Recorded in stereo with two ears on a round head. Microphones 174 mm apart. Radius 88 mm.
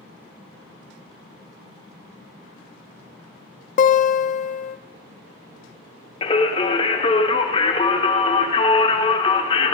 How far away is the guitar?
About 0.6 m.